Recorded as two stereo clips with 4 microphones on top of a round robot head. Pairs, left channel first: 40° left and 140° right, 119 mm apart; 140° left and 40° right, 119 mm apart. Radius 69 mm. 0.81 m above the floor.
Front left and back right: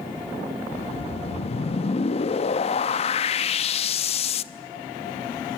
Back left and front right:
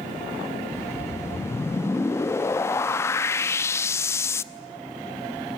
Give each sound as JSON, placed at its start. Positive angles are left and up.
{"t": 0.7, "sound": "a whoosh", "azimuth_deg": 75, "distance_m": 0.8}